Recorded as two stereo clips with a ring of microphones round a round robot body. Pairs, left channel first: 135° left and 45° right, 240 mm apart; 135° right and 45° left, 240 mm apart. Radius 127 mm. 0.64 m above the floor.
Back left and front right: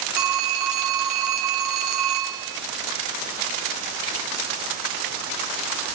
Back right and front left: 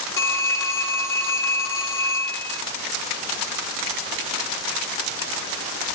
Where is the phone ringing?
55° right, 1.0 m.